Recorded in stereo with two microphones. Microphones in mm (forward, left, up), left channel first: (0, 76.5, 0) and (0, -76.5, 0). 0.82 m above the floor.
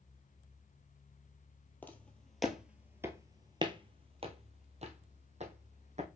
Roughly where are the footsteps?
Centre.